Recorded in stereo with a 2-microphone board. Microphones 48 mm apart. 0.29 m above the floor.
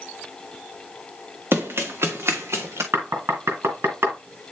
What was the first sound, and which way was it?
Running footsteps, 65° right (ahead or behind).